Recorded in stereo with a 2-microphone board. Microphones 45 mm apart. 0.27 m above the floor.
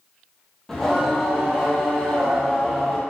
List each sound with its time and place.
0.7 s singing: 10° left (ahead or behind), 1.2 m